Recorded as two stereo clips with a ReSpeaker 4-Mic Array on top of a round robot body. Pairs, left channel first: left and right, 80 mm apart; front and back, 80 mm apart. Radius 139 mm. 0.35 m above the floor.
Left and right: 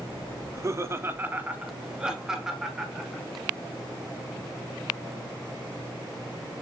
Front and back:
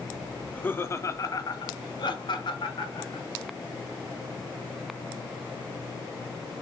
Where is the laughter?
70° right, 1.0 m; by 3.2 s straight ahead, 2 m.